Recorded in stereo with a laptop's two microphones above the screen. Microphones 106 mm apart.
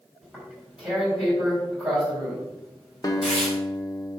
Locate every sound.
0.2 s tearing paper: 10° right (ahead or behind), 4 m
3.0 s a guitar: 35° left (ahead or behind), 1.0 m